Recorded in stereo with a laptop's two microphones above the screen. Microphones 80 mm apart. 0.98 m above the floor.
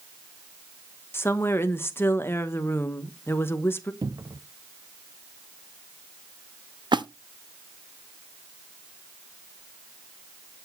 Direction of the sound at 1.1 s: 30° left (ahead or behind).